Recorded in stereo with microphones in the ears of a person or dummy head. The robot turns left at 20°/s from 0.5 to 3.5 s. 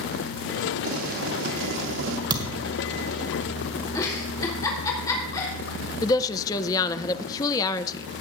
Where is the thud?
20° right (ahead or behind), 1.9 m; by 2.7 s 30° right (ahead or behind), 1.9 m.